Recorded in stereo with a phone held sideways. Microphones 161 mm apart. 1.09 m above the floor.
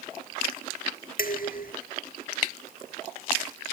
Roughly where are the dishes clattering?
Left.